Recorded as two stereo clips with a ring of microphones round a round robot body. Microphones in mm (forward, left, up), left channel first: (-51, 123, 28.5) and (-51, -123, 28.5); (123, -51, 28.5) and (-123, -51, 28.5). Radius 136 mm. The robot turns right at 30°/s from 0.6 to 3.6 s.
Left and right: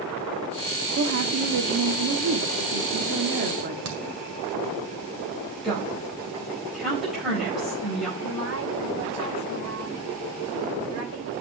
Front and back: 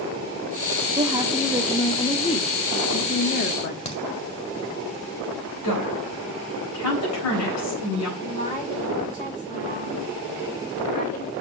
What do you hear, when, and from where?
1.0 s a woman speaking: 115° right, 1.0 m; by 3.8 s 35° right, 1.0 m
3.9 s a crack: 65° right, 2.0 m
5.6 s a woman speaking: straight ahead, 4 m
8.2 s a woman speaking: 55° right, 3 m